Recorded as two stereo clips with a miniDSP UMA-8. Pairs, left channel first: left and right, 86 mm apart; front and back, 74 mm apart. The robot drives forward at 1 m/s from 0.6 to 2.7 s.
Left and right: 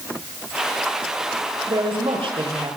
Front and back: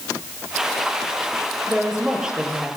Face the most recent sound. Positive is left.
turn(degrees=-105)